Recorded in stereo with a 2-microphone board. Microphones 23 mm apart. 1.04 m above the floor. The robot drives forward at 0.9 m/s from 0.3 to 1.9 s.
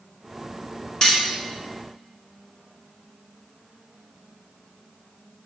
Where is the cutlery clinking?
35° left (ahead or behind), 1.0 m; by 1.2 s 45° left (ahead or behind), 0.9 m.